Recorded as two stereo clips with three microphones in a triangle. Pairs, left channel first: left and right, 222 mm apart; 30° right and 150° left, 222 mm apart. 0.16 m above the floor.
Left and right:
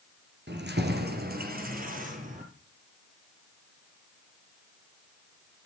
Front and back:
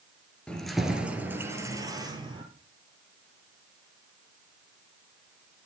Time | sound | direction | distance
0.5 | keys jangling | 115° right | 2 m